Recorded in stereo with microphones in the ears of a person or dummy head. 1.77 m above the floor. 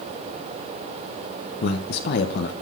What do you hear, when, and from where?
1.6 s a man speaking: 60° left (ahead or behind), 1.3 m